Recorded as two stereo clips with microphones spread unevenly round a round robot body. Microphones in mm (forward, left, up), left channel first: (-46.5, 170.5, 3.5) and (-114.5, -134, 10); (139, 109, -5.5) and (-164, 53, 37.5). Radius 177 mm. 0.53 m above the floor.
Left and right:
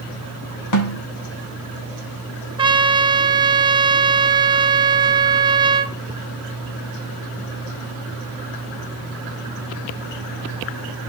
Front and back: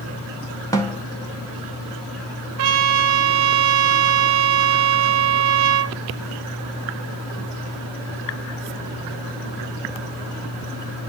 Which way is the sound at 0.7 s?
85° left.